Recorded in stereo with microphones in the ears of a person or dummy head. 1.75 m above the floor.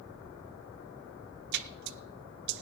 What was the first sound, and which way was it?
A splash, 60° right (ahead or behind).